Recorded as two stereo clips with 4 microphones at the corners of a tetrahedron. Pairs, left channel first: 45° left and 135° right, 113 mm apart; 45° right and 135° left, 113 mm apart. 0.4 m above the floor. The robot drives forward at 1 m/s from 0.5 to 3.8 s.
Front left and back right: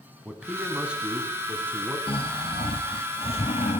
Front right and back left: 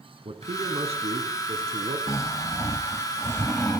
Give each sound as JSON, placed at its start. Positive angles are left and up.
{"t": 0.2, "sound": "a man speaking", "azimuth_deg": 140, "distance_m": 4.0}
{"t": 2.1, "sound": "snoring", "azimuth_deg": 15, "distance_m": 3.0}